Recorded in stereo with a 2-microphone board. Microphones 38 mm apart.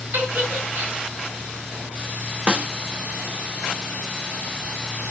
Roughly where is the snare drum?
Right.